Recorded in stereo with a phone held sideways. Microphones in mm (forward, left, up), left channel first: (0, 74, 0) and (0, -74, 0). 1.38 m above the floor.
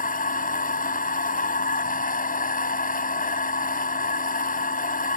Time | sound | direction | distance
0.0 | a machine running | 70° left (ahead or behind) | ?